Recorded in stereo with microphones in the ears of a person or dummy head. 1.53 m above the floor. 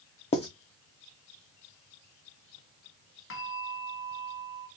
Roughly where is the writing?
Left.